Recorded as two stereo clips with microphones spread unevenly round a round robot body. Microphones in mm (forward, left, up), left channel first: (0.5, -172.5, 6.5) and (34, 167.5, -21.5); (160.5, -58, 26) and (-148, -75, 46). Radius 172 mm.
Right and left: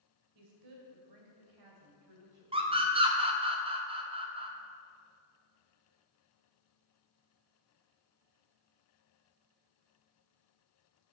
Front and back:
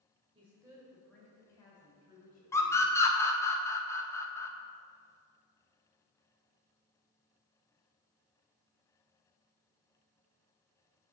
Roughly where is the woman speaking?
Left.